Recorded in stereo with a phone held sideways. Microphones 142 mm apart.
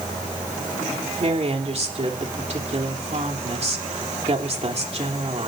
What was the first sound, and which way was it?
A woman speaking, 50° right (ahead or behind).